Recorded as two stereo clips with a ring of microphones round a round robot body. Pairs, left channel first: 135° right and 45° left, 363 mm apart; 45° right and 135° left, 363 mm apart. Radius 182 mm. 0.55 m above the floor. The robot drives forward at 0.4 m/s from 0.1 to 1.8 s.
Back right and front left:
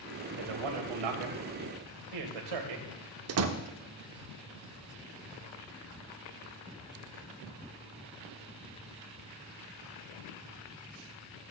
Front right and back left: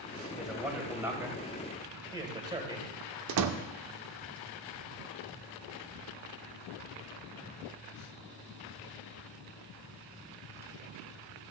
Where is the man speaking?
45° left, 2.5 m; by 2.9 s 55° left, 2 m.